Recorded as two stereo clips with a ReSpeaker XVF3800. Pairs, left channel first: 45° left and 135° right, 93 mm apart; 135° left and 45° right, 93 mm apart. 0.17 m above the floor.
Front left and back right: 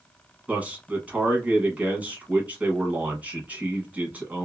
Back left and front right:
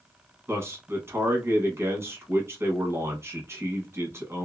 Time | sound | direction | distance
0.5 | a man speaking | 75° right | 1.1 m